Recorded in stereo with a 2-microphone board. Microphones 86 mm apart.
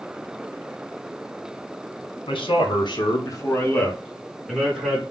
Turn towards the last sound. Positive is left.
turn(degrees=-5)  # may be behind; listen again after turning